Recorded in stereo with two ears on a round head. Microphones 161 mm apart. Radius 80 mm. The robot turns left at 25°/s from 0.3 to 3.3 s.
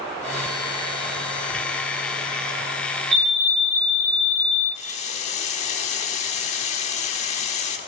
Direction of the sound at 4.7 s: 40° left (ahead or behind).